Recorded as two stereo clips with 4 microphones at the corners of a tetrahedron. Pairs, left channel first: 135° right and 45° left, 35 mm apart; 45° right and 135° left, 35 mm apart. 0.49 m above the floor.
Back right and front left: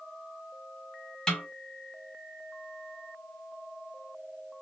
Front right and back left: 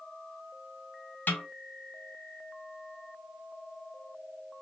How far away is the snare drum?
About 0.8 m.